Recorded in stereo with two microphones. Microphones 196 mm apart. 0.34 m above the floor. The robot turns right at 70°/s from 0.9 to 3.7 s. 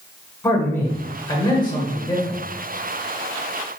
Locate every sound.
0.4 s a man speaking: 10° left (ahead or behind), 1.1 m; by 2.4 s 15° left (ahead or behind), 1.1 m